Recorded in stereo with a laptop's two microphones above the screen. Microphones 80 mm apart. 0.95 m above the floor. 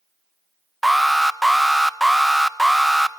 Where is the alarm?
Centre (ahead or behind), 0.8 m.